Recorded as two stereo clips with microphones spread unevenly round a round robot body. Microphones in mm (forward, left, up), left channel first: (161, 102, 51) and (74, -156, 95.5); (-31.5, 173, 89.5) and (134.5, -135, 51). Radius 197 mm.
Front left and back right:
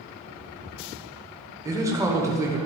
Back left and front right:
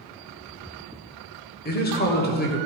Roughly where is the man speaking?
Behind.